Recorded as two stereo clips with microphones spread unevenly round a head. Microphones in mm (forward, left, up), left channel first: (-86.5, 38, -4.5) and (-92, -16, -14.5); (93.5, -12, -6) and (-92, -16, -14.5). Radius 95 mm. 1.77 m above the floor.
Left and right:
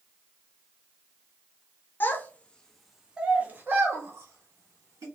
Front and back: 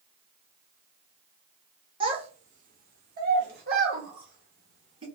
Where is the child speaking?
120° left, 0.8 m; by 5.0 s 130° right, 1.4 m.